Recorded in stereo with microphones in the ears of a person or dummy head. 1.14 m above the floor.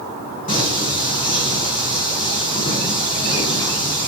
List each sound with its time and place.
0.5 s singing: 45° left (ahead or behind), 2.5 m